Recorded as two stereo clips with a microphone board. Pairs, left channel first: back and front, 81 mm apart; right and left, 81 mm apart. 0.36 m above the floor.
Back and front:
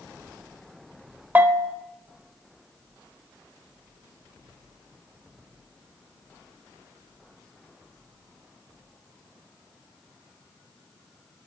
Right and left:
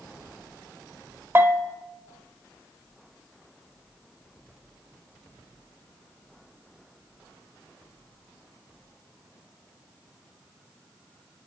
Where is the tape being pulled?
I don't hear tape being pulled.